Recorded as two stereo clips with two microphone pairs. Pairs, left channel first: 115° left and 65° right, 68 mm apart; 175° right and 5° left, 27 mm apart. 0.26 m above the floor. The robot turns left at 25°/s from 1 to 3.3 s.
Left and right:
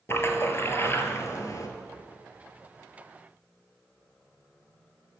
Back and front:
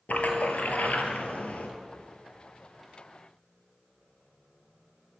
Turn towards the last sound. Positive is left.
turn(degrees=110)